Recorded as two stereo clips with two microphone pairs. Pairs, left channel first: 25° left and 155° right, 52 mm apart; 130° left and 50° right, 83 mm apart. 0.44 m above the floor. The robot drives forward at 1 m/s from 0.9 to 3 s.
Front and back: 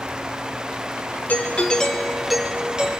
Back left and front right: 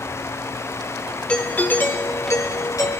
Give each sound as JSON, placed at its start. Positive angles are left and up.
{"t": 1.3, "sound": "a doorbell", "azimuth_deg": 60, "distance_m": 1.8}